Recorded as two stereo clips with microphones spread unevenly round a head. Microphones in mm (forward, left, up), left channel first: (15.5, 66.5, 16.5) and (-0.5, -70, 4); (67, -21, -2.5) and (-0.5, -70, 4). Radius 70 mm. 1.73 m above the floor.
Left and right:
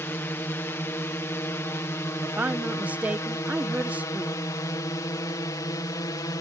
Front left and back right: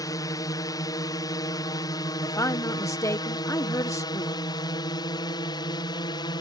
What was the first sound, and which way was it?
A drone, 10° left.